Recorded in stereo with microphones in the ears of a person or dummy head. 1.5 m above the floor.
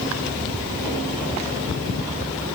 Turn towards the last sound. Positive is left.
No sound to turn to.